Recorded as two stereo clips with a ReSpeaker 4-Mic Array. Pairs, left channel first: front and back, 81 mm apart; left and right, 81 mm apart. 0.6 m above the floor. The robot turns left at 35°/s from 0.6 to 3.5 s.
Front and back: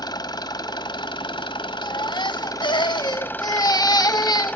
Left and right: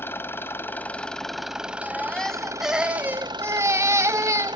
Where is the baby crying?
25° left, 0.9 m; by 4.6 s 35° right, 0.9 m.